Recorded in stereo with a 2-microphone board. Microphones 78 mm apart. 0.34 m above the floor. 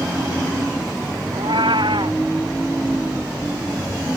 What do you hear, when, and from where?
1.3 s a cat meowing: 80° right